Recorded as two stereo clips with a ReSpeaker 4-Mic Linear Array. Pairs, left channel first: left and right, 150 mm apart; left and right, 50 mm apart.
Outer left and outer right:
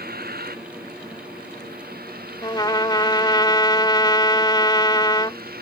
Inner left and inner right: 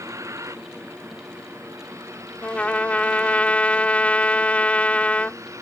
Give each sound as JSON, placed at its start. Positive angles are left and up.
{"t": 0.0, "sound": "a vehicle", "side_deg": -90}
{"t": 2.4, "sound": "a trumpet", "side_deg": 30}